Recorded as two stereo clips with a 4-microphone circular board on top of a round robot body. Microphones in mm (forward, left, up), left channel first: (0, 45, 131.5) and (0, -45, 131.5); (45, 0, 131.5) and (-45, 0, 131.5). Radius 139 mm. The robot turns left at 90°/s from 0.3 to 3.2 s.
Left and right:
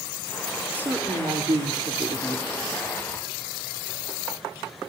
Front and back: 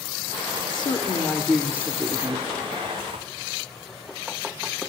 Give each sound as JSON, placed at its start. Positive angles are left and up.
{"t": 0.7, "sound": "a woman speaking", "azimuth_deg": -15, "distance_m": 1.9}